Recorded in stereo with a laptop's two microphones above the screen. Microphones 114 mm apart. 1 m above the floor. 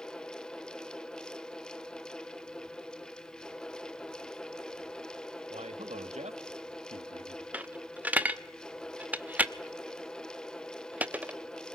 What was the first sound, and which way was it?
A fan, 5° left (ahead or behind).